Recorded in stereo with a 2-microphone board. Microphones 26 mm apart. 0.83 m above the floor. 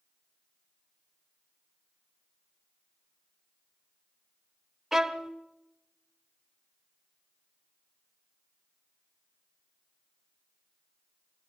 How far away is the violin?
About 1.0 m.